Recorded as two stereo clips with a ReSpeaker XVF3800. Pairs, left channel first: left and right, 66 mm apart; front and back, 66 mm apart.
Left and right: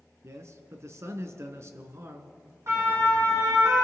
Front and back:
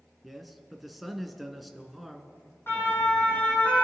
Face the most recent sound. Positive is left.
turn(degrees=-70)